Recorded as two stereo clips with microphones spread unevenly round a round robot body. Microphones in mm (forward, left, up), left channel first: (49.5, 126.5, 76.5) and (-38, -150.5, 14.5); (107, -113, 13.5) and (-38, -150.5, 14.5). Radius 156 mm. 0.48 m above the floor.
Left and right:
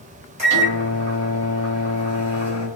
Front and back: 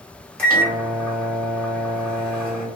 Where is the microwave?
70° right, 1.3 m.